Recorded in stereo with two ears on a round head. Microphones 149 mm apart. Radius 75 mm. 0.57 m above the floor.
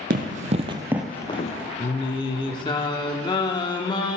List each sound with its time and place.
0.1 s running footsteps: 55° right (ahead or behind), 1.4 m; by 1.7 s 55° left (ahead or behind), 1.0 m
1.8 s singing: 30° left (ahead or behind), 1.0 m